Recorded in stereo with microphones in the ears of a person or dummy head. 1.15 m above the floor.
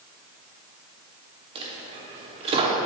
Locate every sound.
1.6 s a dropped coin: 30° right (ahead or behind), 0.8 m